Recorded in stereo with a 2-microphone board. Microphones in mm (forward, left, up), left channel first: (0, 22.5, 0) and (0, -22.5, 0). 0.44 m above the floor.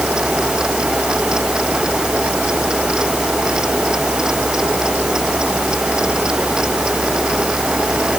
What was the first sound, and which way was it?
Only background noise.